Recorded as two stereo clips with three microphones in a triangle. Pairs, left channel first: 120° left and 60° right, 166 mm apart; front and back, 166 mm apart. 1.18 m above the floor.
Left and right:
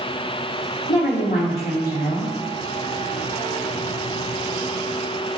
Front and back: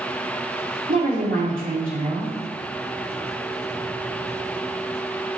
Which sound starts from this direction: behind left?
A woman speaking, at 0.9 s.